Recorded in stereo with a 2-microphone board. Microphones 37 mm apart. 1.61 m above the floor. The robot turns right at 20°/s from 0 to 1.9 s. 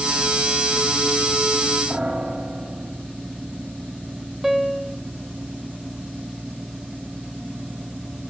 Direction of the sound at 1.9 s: 25° right (ahead or behind).